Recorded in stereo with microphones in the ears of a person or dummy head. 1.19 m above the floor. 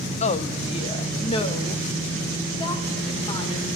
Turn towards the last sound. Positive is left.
turn(degrees=25)  # may be behind; listen again after turning